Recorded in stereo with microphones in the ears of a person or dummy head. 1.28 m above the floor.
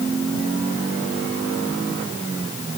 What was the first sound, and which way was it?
Only background noise.